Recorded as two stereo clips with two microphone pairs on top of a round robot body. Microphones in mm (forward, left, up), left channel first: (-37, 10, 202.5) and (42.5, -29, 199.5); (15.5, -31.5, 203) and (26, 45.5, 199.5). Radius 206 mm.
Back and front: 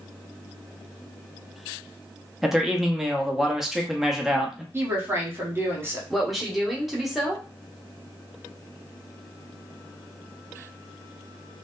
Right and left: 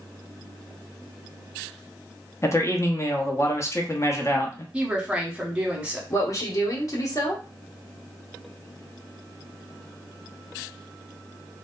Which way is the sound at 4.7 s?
20° left.